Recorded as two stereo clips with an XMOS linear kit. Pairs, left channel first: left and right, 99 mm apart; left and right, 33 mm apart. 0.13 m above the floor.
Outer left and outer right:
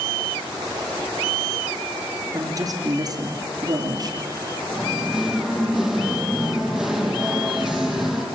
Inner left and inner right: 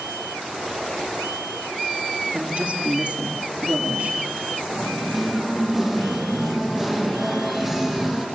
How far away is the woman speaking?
About 2.5 m.